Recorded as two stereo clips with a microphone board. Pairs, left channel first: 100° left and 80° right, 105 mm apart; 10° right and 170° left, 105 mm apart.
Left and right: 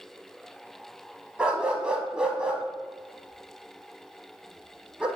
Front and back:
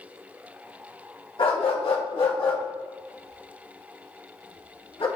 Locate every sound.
1.4 s a dog barking: straight ahead, 0.8 m